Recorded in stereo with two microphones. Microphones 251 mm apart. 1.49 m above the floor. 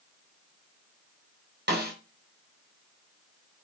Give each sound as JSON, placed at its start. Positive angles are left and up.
{"t": 1.7, "sound": "a snare drum", "side_deg": -40, "distance_m": 3.5}